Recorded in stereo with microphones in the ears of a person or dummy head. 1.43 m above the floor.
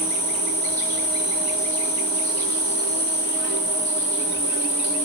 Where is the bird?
No bird in this recording.